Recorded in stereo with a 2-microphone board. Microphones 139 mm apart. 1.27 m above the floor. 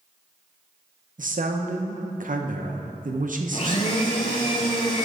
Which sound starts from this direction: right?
A man speaking, at 1.2 s.